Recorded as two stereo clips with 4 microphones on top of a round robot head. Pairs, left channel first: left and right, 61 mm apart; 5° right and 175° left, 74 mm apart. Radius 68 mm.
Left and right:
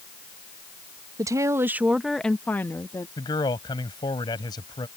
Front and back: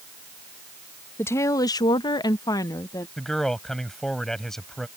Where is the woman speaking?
65° right; by 3.1 s 40° left.